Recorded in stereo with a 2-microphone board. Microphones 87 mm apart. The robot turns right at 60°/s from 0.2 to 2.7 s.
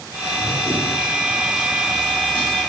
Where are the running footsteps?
45° right (ahead or behind), 3.5 m; by 2.6 s 65° left (ahead or behind), 5 m.